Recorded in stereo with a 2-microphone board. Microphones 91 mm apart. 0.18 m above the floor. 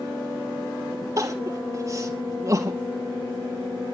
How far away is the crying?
About 2.5 m.